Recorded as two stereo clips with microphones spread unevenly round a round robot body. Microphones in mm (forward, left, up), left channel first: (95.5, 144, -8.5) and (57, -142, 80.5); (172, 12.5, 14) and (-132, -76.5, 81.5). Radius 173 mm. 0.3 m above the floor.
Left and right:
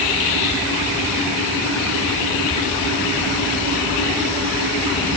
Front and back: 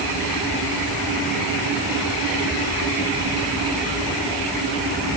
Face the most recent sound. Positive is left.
No sound to turn to.